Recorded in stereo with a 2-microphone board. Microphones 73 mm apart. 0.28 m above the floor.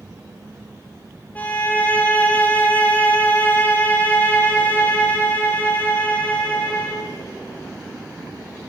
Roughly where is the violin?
Left.